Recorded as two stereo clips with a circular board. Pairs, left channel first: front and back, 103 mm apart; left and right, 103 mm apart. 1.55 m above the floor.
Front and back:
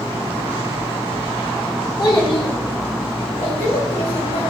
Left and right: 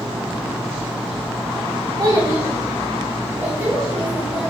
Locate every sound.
2.0 s a child speaking: 40° right, 1.0 m; by 4.5 s 10° right, 2 m